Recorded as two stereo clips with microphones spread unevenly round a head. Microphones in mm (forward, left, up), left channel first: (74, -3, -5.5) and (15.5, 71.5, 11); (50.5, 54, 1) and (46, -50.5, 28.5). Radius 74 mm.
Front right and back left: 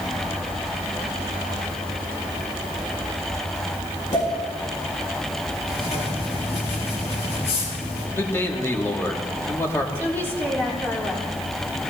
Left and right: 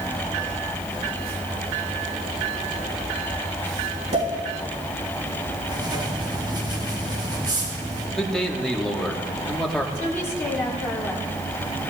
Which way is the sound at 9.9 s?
15° left.